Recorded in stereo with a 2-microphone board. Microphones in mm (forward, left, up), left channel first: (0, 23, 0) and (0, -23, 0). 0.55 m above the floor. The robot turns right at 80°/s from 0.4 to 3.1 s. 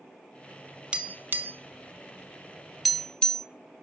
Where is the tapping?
25° right (ahead or behind), 0.9 m; by 3.5 s 20° left (ahead or behind), 0.9 m.